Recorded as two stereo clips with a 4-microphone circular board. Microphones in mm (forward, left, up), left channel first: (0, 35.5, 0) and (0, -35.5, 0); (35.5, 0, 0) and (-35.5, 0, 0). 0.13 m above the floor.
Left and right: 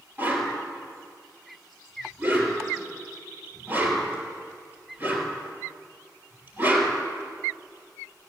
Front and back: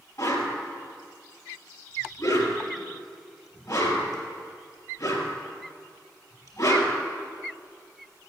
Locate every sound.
0.2 s a whoosh: 35° right, 3 m